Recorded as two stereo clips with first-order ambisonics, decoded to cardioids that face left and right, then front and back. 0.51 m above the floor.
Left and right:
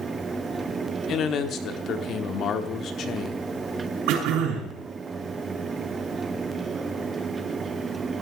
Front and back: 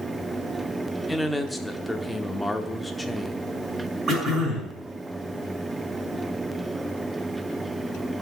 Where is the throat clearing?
110° right, 6 m.